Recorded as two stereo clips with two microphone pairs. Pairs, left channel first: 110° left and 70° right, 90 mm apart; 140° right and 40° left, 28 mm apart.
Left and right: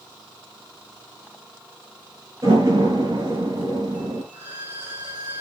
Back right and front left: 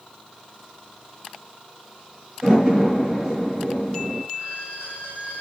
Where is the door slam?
20° right, 6 m.